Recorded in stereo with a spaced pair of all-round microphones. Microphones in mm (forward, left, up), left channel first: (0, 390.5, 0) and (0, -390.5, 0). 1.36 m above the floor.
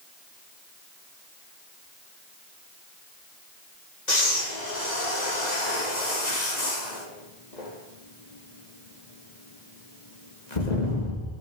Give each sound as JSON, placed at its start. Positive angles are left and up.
{"t": 4.1, "sound": "breathing", "side_deg": 65, "distance_m": 3.0}